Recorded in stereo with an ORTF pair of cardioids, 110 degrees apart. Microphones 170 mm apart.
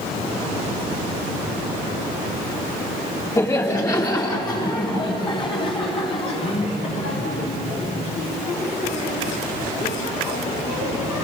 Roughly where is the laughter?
Ahead.